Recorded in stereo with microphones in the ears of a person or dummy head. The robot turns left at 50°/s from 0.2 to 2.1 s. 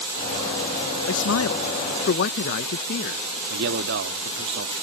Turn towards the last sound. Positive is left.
turn(degrees=-60)  # may be behind; listen again after turning